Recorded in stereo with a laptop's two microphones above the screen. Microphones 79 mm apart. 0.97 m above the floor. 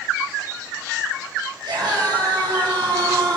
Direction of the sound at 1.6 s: 70° right (ahead or behind).